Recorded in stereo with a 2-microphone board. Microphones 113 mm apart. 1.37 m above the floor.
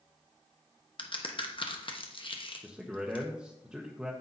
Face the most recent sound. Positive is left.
turn(degrees=-5)  # may be behind; listen again after turning